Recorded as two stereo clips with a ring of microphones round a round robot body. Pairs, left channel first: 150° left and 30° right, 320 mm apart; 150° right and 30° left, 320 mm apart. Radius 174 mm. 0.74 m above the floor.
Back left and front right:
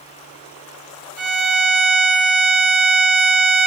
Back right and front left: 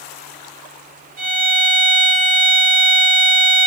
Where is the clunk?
No clunk in this recording.